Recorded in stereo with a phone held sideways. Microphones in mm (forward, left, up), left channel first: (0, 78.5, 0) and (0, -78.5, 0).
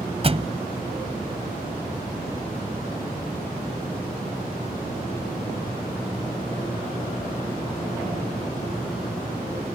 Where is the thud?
40° right (ahead or behind).